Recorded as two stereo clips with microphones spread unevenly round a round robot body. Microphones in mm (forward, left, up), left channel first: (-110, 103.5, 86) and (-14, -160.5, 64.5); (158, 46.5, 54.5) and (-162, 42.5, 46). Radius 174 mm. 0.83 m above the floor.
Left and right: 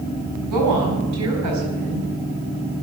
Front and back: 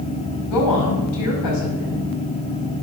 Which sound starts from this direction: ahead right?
A woman speaking, at 0.5 s.